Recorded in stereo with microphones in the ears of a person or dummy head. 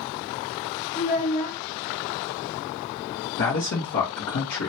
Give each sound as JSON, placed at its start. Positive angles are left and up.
{"t": 0.9, "sound": "a child speaking", "side_deg": 50, "distance_m": 2.0}
{"t": 3.4, "sound": "a man speaking", "side_deg": 60, "distance_m": 1.5}